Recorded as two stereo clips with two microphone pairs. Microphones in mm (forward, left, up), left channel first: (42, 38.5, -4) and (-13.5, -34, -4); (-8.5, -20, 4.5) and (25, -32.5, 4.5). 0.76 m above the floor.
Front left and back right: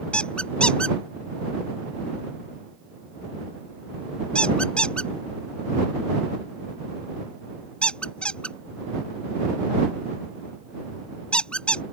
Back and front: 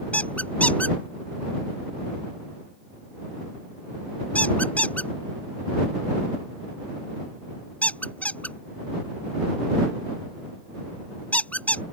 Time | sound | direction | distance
0.1 | a squeak | 130° left | ?